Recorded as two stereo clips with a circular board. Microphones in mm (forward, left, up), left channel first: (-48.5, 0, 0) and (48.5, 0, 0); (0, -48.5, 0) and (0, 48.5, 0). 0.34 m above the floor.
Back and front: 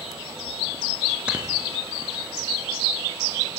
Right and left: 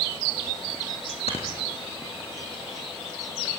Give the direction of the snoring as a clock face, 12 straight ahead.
3 o'clock.